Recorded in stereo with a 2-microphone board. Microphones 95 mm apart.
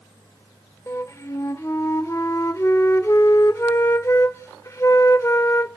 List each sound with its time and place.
0.9 s a flute: 35° left (ahead or behind), 0.6 m